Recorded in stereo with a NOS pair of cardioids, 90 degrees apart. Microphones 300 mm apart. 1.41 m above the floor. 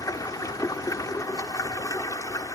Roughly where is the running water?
Ahead.